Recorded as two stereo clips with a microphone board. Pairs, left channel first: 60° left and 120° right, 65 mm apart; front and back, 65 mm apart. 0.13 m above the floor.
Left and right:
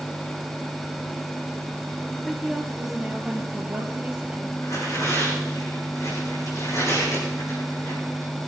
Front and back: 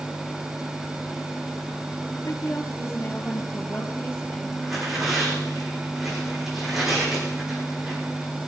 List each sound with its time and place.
2.2 s a woman speaking: 30° right, 3 m; by 4.5 s 50° right, 4 m
4.6 s tearing paper: 95° left, 7.5 m